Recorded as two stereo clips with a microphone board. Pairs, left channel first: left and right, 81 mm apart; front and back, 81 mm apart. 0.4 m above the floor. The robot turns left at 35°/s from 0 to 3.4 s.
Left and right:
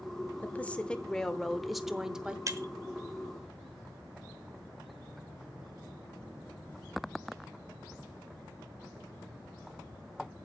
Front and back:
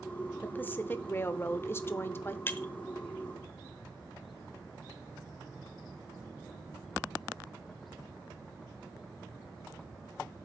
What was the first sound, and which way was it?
A woman speaking, 45° left.